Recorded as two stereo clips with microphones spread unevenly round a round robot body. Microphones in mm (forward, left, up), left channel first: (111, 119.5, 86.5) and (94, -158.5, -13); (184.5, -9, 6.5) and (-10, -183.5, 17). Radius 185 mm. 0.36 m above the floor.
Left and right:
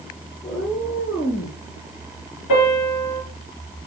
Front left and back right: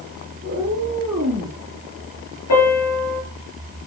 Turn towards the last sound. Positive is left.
turn(degrees=85)